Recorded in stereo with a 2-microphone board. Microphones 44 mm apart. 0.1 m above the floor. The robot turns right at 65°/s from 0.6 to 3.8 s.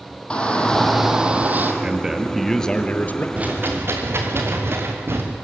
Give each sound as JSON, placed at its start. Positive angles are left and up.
{"t": 0.3, "sound": "a shout", "azimuth_deg": 160, "distance_m": 3.5}
{"t": 1.8, "sound": "a man speaking", "azimuth_deg": -30, "distance_m": 2.0}
{"t": 3.4, "sound": "a rattle", "side_deg": -30, "distance_m": 4.5}